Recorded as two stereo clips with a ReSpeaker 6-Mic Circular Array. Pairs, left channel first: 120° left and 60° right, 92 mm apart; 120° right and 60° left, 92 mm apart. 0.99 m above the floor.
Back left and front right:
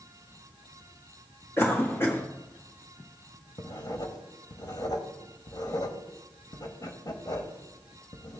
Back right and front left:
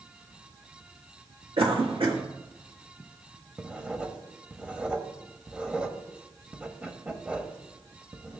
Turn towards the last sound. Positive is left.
turn(degrees=135)